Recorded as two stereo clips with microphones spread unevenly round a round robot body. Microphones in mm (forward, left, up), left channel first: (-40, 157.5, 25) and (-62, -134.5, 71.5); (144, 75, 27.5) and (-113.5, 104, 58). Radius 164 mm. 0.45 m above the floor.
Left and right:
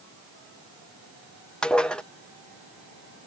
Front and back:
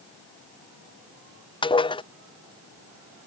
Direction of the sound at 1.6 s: 20° left.